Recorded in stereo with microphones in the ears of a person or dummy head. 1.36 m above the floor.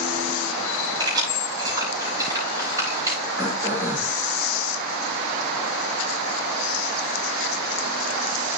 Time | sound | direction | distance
1.0 | keys jangling | 30° right (ahead or behind) | 6 m
3.4 | throat clearing | 25° right (ahead or behind) | 3.5 m